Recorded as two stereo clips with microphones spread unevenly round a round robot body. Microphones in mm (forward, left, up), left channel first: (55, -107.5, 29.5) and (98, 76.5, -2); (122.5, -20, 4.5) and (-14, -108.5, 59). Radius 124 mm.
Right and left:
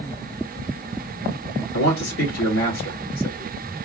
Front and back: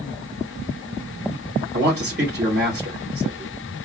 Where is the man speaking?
115° right, 2.5 m.